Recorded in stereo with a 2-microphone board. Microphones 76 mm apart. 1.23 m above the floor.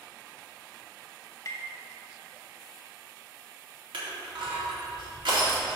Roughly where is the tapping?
Left.